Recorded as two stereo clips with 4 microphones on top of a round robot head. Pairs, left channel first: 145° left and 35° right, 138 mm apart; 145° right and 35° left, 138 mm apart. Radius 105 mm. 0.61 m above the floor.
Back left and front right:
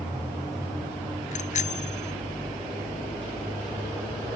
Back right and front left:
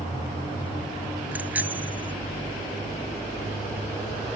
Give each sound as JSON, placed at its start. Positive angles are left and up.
{"t": 1.3, "sound": "a bicycle bell", "azimuth_deg": 110}